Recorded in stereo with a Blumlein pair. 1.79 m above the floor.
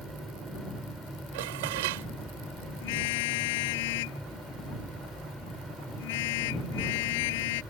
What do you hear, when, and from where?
0.0 s a fan: straight ahead
1.3 s dishes clattering: 50° right
2.8 s a car horn: 50° left